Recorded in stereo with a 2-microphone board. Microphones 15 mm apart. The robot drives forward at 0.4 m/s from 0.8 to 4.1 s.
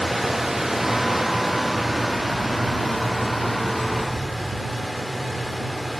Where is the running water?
15° right (ahead or behind), 0.7 m; by 6.0 s 5° right (ahead or behind), 2.0 m.